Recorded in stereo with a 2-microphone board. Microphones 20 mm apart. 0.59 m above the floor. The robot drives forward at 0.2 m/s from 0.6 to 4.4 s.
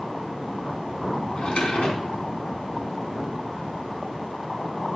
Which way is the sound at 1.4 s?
65° left (ahead or behind).